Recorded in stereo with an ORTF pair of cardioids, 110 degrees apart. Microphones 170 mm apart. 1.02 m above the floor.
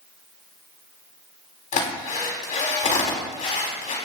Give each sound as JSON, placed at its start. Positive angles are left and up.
{"t": 1.7, "sound": "a drill", "azimuth_deg": 50, "distance_m": 4.0}